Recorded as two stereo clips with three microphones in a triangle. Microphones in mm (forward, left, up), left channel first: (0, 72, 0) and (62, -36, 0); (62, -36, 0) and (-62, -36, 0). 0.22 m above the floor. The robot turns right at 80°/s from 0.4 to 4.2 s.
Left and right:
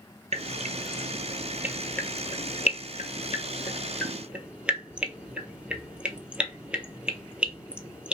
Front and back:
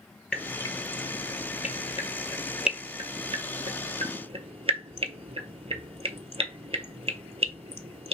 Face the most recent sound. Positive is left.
turn(degrees=-140)